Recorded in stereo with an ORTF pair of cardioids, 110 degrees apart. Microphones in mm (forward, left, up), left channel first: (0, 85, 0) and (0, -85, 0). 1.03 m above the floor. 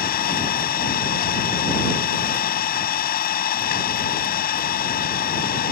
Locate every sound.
0.0 s an engine running: 60° left